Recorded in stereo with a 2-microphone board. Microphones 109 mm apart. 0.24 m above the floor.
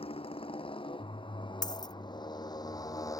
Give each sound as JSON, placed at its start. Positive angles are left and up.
{"t": 0.0, "sound": "a motorcycle", "side_deg": 60}
{"t": 1.6, "sound": "a dropped coin", "side_deg": 40}